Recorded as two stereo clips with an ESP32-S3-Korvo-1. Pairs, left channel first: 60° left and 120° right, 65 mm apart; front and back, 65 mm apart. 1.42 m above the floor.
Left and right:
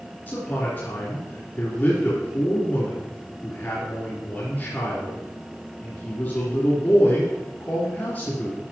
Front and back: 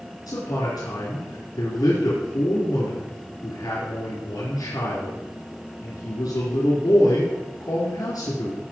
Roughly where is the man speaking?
Ahead.